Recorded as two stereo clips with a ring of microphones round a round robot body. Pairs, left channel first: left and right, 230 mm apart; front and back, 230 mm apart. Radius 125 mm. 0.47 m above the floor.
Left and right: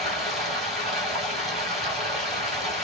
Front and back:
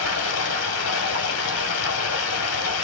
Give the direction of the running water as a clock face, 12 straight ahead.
12 o'clock.